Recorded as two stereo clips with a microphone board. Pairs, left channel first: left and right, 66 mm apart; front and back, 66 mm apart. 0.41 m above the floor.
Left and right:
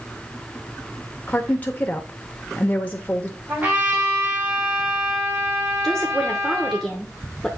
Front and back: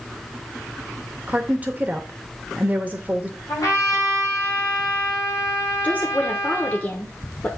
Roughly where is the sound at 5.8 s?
Ahead.